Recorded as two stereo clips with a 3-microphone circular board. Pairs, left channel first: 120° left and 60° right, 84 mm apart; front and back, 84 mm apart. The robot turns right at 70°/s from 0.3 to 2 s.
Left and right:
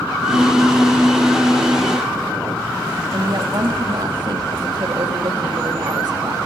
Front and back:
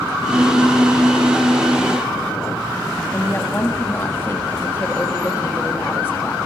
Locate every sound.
3.1 s a woman speaking: 60° right, 1.5 m